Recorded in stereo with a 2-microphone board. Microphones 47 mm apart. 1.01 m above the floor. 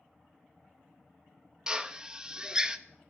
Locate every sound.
1.7 s a drill: 20° right (ahead or behind), 0.5 m